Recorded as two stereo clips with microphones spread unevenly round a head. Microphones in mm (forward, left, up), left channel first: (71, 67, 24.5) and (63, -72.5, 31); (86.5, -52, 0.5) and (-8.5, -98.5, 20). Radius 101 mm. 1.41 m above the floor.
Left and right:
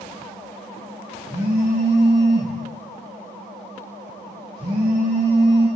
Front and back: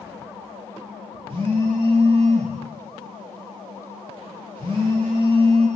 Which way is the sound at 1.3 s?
130° right.